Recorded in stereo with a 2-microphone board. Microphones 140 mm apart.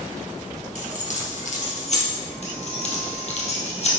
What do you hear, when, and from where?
0.8 s keys jangling: 55° left (ahead or behind), 2 m
2.4 s keys jangling: 55° left (ahead or behind), 2.5 m